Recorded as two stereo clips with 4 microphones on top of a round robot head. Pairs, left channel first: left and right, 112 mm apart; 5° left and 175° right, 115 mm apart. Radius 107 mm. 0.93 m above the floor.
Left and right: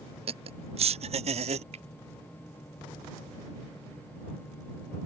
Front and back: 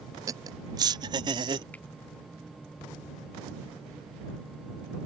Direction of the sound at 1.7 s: 70° right.